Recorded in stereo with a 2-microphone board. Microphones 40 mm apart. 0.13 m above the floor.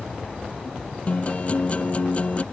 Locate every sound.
1.1 s a guitar: 35° left (ahead or behind)